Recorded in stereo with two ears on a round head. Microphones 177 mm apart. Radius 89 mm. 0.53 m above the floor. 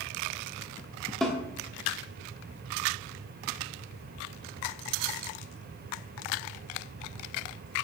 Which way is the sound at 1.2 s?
Centre (ahead or behind).